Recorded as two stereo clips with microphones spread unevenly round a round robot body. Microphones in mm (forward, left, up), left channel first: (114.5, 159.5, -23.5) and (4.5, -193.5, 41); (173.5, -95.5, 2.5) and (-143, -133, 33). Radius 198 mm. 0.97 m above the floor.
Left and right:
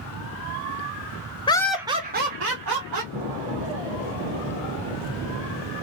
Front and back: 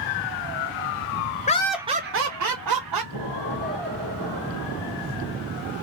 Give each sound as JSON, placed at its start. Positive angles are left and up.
{"t": 1.5, "sound": "laughter", "azimuth_deg": 30, "distance_m": 0.6}
{"t": 3.1, "sound": "an explosion", "azimuth_deg": 175, "distance_m": 1.6}